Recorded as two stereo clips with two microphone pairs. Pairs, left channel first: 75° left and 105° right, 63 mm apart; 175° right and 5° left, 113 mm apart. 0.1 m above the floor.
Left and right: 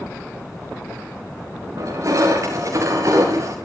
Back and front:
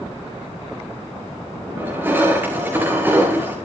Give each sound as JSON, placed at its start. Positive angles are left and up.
{"t": 1.8, "sound": "crushing", "azimuth_deg": -70, "distance_m": 7.0}